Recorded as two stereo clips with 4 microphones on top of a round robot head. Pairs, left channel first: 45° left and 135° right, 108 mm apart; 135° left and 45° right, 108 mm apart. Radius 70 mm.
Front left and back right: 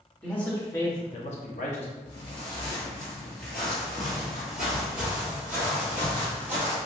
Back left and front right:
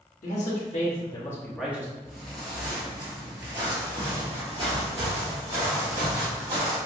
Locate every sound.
0.2 s a man speaking: 120° left, 1.4 m; by 1.9 s 20° left, 0.9 m
2.0 s footsteps: 50° left, 1.8 m; by 6.8 s 70° right, 3 m